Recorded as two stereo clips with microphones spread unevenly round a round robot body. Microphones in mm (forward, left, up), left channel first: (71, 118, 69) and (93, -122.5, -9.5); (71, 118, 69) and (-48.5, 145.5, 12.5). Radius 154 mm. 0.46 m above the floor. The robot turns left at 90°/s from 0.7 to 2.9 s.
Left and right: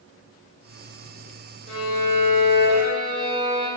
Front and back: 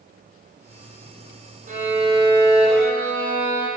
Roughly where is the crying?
I don't hear crying.